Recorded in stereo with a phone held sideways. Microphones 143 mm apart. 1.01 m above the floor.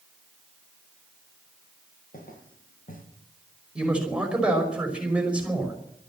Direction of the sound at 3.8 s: 5° right (ahead or behind).